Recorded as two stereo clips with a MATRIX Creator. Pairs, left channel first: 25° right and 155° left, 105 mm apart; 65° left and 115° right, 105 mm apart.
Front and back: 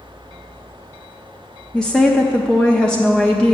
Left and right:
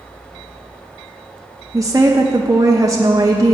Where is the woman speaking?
100° right, 0.5 m.